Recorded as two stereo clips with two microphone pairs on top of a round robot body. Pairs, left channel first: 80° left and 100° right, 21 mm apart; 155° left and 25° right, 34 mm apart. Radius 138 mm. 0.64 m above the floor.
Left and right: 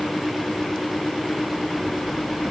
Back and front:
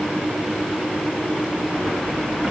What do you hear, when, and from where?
Only background noise.